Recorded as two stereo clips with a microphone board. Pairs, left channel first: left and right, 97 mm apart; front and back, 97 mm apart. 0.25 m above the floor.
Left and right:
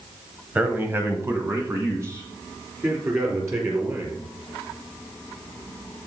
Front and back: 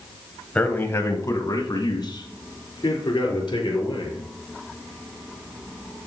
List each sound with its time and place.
0.6 s a man speaking: 55° right, 1.1 m; by 4.3 s 35° right, 4.5 m